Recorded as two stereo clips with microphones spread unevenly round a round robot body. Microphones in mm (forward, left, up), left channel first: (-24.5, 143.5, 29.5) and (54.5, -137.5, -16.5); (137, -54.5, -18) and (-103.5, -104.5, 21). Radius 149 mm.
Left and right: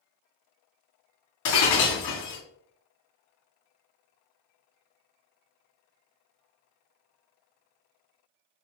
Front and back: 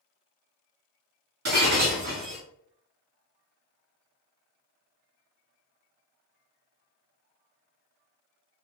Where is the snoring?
No snoring in this recording.